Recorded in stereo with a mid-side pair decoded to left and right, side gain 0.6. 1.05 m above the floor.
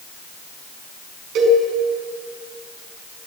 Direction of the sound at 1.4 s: 65° right.